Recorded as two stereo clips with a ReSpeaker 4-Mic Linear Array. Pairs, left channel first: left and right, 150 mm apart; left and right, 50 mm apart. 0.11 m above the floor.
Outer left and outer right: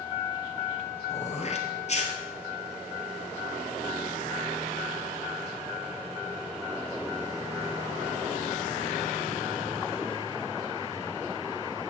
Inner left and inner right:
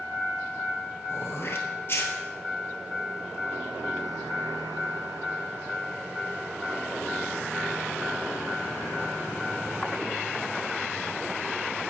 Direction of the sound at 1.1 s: 50° left (ahead or behind).